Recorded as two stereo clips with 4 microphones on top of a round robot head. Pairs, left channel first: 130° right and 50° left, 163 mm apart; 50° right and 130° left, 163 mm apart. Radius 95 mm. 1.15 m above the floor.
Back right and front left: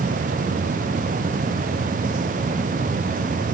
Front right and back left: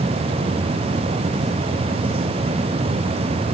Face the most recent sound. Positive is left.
No sound to turn to.